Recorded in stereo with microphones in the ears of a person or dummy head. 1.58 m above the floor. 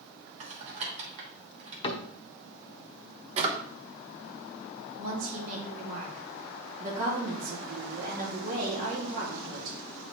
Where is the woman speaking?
45° right (ahead or behind), 2 m.